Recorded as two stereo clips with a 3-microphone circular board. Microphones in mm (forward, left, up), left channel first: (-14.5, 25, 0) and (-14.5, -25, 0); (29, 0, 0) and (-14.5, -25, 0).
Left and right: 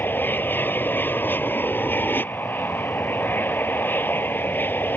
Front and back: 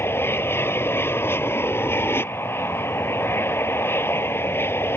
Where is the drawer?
I don't hear a drawer.